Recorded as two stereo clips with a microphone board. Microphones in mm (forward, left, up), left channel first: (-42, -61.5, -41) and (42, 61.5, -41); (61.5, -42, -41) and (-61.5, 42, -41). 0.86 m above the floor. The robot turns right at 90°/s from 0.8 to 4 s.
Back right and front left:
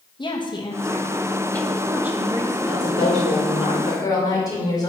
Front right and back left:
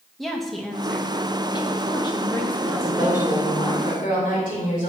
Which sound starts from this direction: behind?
A woman speaking, at 2.6 s.